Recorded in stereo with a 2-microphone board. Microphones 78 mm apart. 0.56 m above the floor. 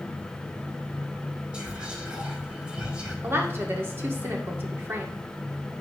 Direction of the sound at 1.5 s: 15° right (ahead or behind).